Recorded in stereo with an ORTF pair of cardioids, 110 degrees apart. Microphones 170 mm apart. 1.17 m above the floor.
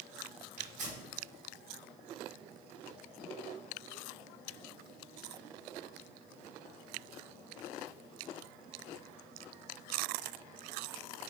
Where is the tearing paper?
45° right, 1.6 m.